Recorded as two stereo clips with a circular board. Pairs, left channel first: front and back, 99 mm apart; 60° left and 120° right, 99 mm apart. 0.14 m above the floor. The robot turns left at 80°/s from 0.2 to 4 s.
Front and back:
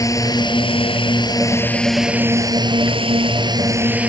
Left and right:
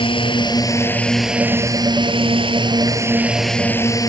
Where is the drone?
50° left; by 4.1 s 105° left.